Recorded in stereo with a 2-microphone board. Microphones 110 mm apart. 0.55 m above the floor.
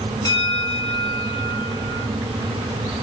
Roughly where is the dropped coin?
No dropped coin in this recording.